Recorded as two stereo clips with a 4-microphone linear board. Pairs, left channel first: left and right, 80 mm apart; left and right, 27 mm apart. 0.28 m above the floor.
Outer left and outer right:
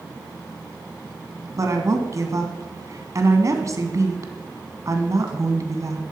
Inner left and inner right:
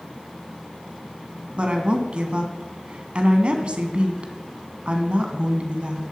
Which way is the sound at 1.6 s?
45° right (ahead or behind).